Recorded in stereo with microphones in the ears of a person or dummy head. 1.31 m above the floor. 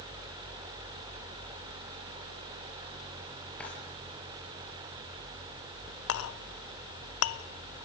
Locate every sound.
3.6 s a drawer: 5° left (ahead or behind), 6.5 m
6.1 s a clink: 75° left (ahead or behind), 0.9 m